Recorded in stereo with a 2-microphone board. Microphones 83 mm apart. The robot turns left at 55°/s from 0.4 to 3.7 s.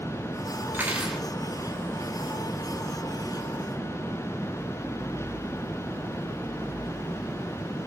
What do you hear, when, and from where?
0.7 s cutlery clinking: 30° right (ahead or behind), 1.7 m; by 1.2 s centre (ahead or behind), 1.7 m